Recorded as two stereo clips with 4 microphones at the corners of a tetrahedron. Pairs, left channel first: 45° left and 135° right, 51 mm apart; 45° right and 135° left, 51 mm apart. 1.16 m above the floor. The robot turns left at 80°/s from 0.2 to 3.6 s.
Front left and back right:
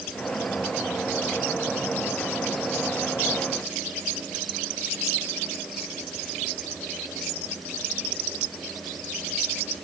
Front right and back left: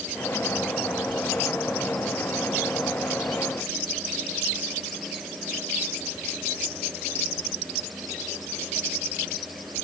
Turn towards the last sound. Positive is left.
No sound to turn to.